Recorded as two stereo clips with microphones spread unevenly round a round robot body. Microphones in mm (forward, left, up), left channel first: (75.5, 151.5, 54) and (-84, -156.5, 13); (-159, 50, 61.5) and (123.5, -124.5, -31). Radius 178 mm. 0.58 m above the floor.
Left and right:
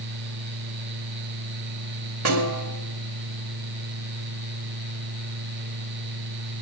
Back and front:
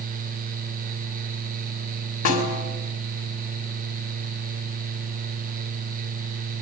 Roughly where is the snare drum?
Behind.